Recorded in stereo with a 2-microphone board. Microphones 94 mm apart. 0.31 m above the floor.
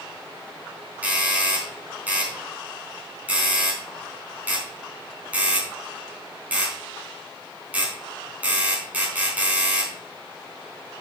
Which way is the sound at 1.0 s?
15° right (ahead or behind).